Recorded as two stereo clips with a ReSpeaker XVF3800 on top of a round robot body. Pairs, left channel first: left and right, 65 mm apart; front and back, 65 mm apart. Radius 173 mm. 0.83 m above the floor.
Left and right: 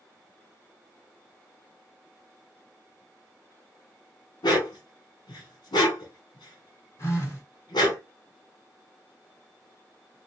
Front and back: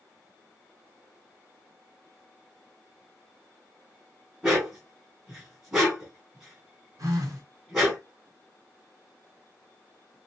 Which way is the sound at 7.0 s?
140° left.